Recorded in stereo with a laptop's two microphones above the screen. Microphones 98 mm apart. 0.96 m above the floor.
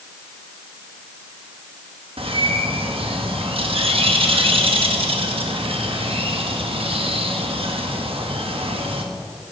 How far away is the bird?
About 1.1 m.